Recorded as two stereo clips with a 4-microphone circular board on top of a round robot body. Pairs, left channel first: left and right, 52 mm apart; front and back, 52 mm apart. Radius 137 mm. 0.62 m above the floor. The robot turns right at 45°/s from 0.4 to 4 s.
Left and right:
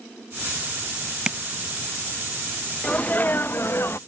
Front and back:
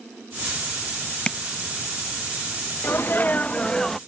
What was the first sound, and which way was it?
Tapping, 35° right.